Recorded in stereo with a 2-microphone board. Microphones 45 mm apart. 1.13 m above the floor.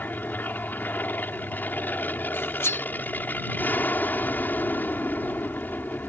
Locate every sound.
0.0 s an aircraft: 45° left (ahead or behind)
2.3 s cutlery clinking: 70° left (ahead or behind)